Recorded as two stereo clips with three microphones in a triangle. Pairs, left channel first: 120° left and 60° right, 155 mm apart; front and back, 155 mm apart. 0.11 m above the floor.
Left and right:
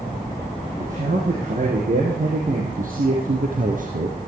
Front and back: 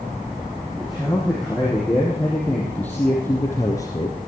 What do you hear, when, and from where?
0.8 s a man speaking: 90° right, 5 m; by 4.2 s 60° right, 2.5 m